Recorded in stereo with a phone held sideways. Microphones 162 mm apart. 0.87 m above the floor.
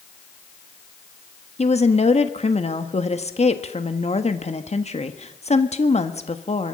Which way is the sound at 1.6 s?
40° left (ahead or behind).